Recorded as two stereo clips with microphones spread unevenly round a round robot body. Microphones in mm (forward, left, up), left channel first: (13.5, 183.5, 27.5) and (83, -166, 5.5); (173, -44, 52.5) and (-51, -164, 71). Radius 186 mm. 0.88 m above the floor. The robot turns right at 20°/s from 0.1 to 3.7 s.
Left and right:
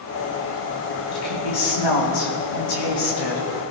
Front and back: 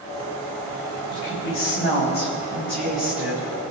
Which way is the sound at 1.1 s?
80° left.